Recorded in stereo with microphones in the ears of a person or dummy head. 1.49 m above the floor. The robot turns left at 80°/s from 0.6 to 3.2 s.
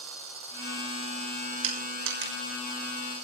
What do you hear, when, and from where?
1.6 s crushing: 75° right (ahead or behind), 6 m; by 2.3 s 50° right (ahead or behind), 6 m